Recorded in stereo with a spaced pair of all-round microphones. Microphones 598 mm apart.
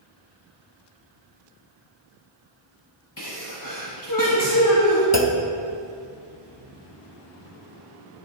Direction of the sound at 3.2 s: 35° left (ahead or behind).